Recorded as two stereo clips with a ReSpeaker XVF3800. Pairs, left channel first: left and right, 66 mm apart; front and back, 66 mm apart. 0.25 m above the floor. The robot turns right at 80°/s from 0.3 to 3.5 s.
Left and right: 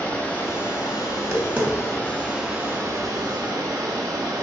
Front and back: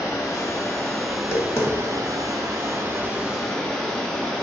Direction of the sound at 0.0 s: 20° left.